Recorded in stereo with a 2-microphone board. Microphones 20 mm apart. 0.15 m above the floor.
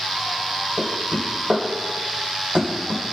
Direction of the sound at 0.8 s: 65° right (ahead or behind).